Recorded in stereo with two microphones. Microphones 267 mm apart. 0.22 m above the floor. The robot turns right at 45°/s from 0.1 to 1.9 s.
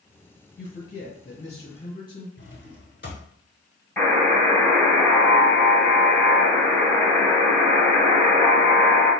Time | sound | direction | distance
0.6 | a man speaking | 85° left | 1.7 m
2.4 | a drawer | 45° left (ahead or behind) | 0.9 m
4.0 | a buzzer | 10° left (ahead or behind) | 1.7 m